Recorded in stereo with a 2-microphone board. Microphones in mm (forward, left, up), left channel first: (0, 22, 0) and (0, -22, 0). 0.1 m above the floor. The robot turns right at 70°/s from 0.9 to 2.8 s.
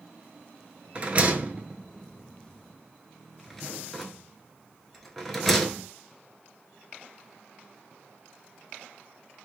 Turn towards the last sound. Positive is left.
turn(degrees=5)  # may be behind; listen again after turning